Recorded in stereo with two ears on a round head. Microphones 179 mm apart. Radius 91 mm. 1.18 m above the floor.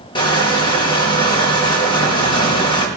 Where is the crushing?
25° left (ahead or behind), 4.5 m.